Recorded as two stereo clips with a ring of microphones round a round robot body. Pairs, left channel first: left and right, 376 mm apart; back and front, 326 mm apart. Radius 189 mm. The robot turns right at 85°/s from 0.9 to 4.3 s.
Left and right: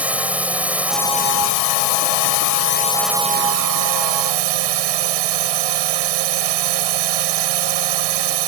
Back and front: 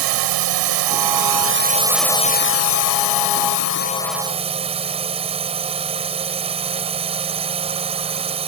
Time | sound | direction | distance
0.0 | a drone | 5° right | ?